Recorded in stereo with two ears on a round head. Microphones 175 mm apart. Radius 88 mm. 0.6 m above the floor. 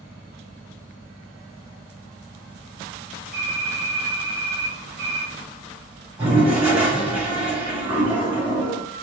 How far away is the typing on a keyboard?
About 1.5 m.